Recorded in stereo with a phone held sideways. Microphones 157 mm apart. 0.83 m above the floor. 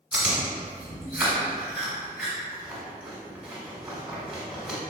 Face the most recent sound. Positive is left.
turn(degrees=-10)  # may be behind; listen again after turning